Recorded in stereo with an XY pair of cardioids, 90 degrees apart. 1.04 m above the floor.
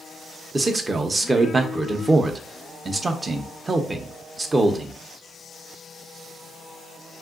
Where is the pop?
I don't hear a pop.